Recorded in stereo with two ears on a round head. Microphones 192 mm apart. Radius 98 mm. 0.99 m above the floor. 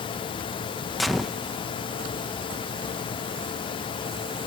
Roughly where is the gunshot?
Centre.